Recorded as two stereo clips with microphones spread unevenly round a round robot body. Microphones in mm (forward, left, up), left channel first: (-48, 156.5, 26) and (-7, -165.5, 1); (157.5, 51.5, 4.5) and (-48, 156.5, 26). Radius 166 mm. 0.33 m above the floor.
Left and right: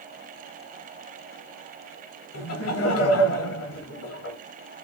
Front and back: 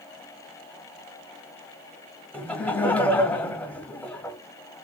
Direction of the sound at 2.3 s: 55° left.